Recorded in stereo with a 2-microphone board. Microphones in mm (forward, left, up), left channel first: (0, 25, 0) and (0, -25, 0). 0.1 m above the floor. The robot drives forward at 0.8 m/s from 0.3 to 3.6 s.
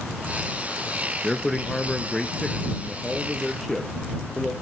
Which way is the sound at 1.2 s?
10° left (ahead or behind).